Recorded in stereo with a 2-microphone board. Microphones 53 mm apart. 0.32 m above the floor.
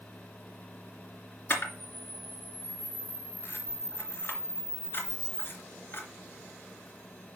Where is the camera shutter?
45° left (ahead or behind), 3 m.